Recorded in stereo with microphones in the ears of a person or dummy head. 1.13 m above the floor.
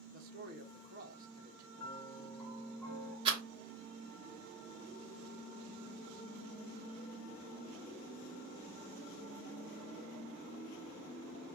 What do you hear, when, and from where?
0.1 s a man speaking: 50° right (ahead or behind), 0.7 m
1.8 s a piano: 5° left (ahead or behind), 2 m
3.2 s a rattle: 25° right (ahead or behind), 1.1 m